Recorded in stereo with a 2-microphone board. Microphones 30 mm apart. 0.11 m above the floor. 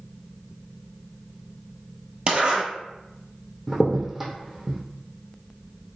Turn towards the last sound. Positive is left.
turn(degrees=-5)  # may be behind; listen again after turning